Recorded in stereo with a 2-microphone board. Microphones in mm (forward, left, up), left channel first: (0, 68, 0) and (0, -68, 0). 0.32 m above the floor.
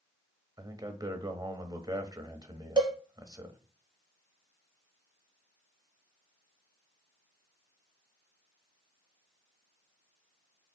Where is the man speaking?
30° right (ahead or behind), 1.1 m.